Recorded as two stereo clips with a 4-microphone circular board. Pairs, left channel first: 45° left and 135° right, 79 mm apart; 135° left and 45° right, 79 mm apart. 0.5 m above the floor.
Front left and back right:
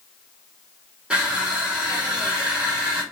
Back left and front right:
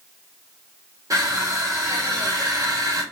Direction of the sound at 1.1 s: 65° right.